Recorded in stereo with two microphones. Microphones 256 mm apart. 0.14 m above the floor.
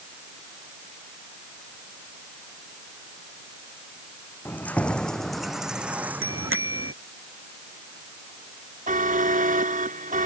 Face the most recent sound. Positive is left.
turn(degrees=-30)  # may be behind; listen again after turning